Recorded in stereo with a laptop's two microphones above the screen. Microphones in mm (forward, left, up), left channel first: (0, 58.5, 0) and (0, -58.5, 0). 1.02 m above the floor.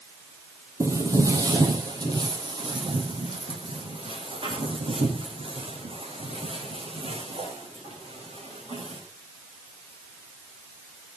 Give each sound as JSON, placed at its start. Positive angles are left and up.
{"t": 0.8, "sound": "footsteps", "side_deg": -25, "distance_m": 2.0}